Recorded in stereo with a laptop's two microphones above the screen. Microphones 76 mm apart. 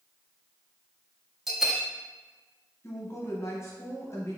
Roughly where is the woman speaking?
Left.